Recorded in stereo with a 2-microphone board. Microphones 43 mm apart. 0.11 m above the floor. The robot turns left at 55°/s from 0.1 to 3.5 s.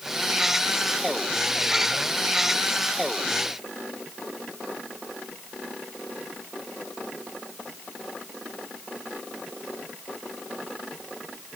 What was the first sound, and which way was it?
Only background noise.